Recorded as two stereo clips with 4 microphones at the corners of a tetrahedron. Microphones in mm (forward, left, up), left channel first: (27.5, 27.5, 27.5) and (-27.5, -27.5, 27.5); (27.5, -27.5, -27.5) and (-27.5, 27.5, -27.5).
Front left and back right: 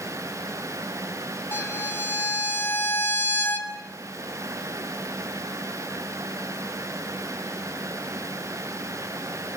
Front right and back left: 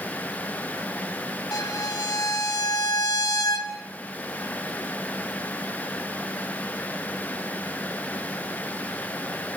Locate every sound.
1.5 s a violin: 10° right, 2.5 m